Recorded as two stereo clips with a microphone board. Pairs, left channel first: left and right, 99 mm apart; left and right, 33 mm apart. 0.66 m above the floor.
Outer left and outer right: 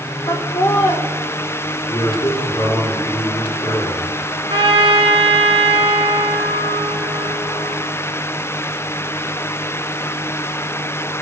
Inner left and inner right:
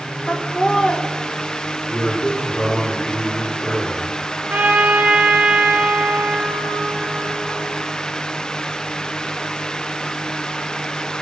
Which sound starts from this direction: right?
A trumpet, at 4.5 s.